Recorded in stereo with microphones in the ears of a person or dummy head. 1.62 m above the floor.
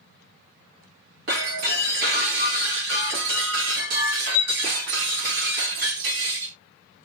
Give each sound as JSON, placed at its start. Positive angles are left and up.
{"t": 1.3, "sound": "breaking glass", "side_deg": -65, "distance_m": 1.8}